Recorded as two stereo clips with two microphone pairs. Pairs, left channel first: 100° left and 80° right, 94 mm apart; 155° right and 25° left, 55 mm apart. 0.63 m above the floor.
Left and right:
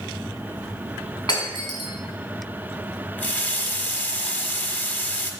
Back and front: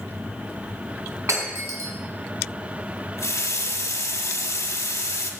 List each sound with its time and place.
1.3 s breaking glass: 60° left, 2 m
3.2 s a running tap: 175° left, 0.9 m